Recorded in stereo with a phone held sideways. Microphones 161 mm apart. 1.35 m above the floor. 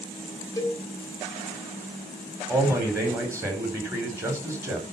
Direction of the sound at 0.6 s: 20° left (ahead or behind).